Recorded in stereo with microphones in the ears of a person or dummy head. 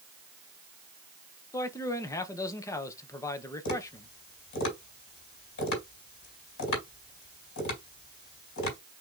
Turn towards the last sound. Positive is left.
turn(degrees=65)  # may be behind; listen again after turning